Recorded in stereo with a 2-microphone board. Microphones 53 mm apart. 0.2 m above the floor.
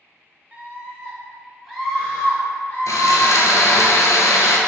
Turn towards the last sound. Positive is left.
turn(degrees=80)